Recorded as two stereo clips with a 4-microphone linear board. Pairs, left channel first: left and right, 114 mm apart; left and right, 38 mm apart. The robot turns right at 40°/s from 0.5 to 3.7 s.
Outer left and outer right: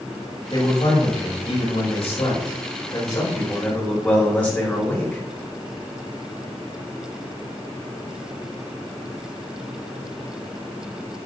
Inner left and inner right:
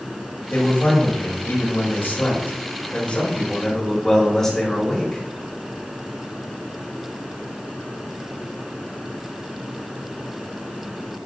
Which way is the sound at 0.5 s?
35° left.